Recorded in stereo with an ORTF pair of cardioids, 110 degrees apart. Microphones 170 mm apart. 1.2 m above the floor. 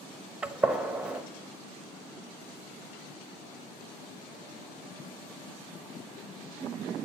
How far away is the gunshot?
About 0.9 m.